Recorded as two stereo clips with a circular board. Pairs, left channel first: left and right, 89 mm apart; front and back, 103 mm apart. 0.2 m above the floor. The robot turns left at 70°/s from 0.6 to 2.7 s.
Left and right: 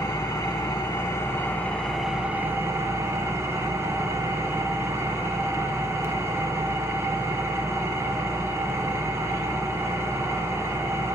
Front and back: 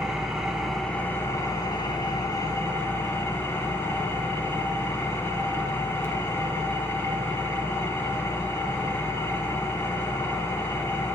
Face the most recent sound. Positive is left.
turn(degrees=-50)